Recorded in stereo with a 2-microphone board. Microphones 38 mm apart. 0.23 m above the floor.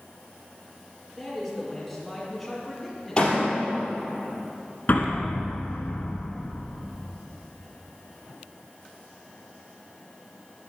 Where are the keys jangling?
No keys jangling in this recording.